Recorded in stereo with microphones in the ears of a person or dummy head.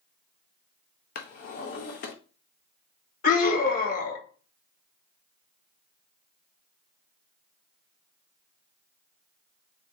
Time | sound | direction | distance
1.1 | a drawer | 40° left (ahead or behind) | 0.6 m
3.2 | a scream | 45° left (ahead or behind) | 1.7 m